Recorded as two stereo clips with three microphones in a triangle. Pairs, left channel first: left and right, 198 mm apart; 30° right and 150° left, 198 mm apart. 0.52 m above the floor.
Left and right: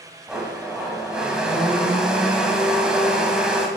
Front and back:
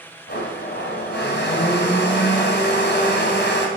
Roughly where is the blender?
Ahead.